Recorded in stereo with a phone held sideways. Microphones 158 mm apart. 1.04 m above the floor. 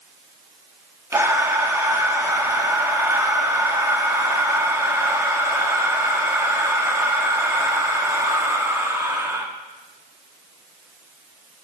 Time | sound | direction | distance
1.1 | breathing | 15° right (ahead or behind) | 1.2 m